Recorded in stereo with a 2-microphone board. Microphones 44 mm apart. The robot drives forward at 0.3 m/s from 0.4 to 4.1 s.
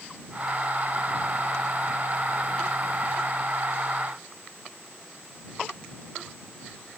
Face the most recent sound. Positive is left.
No sound to turn to.